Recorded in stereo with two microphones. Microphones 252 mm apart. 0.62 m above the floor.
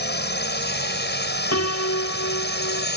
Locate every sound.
0.0 s a drone: 45° left (ahead or behind)
1.5 s a piano: 80° left